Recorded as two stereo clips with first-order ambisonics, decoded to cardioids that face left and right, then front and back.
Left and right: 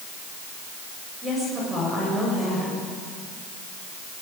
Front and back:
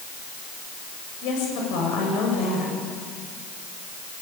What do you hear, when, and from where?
1.2 s a woman speaking: 15° right, 8 m